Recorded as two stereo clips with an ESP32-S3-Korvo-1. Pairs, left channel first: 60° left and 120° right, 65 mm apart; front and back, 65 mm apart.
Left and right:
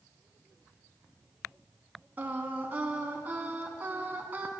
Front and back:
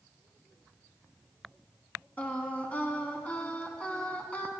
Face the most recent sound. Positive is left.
turn(degrees=-65)